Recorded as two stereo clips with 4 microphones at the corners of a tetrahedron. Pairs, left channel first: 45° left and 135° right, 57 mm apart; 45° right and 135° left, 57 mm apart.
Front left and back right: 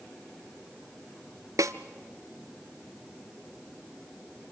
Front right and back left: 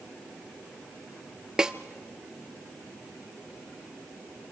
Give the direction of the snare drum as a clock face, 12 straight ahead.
5 o'clock.